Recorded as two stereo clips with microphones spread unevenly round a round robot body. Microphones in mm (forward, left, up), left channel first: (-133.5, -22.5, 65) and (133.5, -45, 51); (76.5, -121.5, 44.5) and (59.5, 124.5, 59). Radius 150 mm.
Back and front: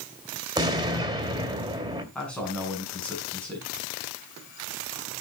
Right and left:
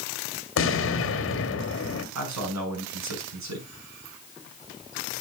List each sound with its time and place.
0.6 s an explosion: 75° right, 2.5 m
2.1 s a man speaking: 90° left, 6.5 m